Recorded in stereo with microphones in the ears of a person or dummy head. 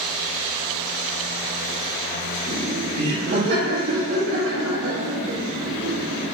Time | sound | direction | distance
2.5 | laughter | 40° right (ahead or behind) | 3 m